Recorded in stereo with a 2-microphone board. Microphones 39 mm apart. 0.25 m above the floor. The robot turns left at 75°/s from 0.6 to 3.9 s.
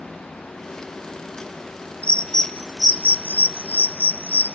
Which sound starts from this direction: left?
A bird, at 2.0 s.